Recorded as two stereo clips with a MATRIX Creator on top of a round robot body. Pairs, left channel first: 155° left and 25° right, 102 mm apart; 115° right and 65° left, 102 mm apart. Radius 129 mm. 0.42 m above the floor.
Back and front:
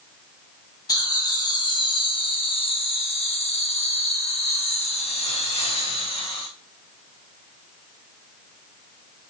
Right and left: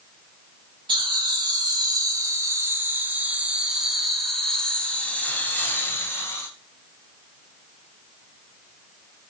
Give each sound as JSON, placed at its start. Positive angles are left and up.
{"t": 0.9, "sound": "laughter", "azimuth_deg": 105, "distance_m": 3.5}